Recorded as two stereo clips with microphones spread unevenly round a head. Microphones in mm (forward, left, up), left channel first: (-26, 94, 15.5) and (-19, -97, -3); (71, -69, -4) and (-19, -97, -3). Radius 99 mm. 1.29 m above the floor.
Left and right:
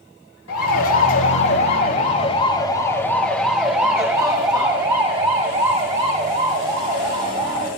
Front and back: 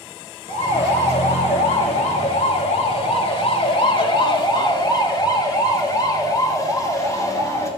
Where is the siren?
70° left, 4 m; by 7.7 s 40° right, 8.5 m.